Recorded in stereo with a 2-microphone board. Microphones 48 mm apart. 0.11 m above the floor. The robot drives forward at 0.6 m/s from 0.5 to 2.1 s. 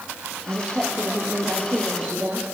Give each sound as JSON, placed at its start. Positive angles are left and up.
{"t": 0.5, "sound": "a woman speaking", "side_deg": -20, "distance_m": 6.0}